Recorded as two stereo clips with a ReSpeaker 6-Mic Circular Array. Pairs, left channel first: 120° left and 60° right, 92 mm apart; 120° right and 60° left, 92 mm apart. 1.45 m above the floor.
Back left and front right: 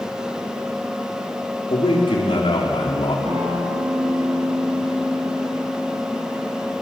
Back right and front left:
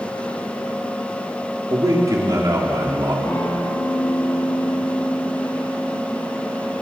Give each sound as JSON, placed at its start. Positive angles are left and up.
{"t": 1.7, "sound": "a man speaking", "azimuth_deg": 110, "distance_m": 4.0}
{"t": 3.2, "sound": "a guitar", "azimuth_deg": -65, "distance_m": 5.0}